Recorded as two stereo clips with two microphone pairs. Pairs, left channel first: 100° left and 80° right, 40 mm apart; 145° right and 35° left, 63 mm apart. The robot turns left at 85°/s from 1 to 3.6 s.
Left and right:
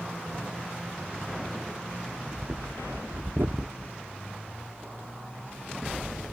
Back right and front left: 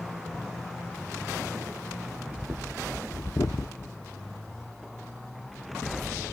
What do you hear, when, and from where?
2.1 s breathing: 5° left, 0.6 m; by 4.0 s 125° right, 0.6 m